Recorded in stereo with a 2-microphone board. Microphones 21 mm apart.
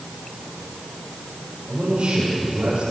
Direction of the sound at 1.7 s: 60° right (ahead or behind).